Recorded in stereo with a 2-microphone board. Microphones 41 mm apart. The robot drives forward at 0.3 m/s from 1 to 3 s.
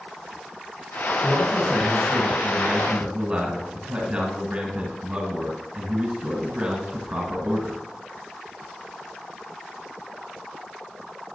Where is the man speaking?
25° right (ahead or behind), 1.6 m; by 7.8 s 20° right (ahead or behind), 1.7 m.